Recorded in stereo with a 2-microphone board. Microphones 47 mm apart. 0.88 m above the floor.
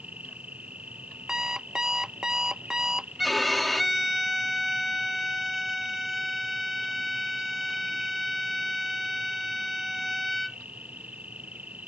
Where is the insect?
30° right (ahead or behind).